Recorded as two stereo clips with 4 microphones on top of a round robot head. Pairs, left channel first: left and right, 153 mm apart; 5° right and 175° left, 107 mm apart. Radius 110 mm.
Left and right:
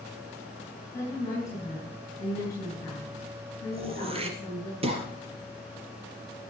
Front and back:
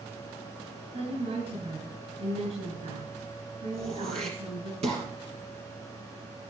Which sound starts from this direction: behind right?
Throat clearing, at 3.7 s.